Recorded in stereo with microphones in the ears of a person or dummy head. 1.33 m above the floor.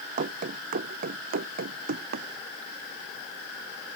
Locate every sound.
0.2 s running footsteps: 40° right (ahead or behind); by 2.3 s 55° right (ahead or behind)